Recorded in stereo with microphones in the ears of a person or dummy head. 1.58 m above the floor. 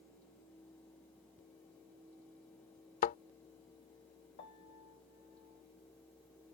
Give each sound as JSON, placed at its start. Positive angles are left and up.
{"t": 3.0, "sound": "a thud", "side_deg": 45}
{"t": 4.4, "sound": "a piano", "side_deg": 25}